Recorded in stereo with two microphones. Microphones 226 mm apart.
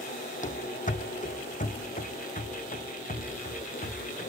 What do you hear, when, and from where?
0.4 s running footsteps: 35° left (ahead or behind), 1.1 m